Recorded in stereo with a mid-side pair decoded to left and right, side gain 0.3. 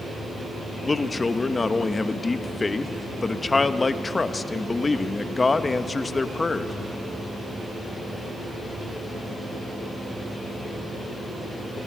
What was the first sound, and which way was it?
A man speaking, 40° left.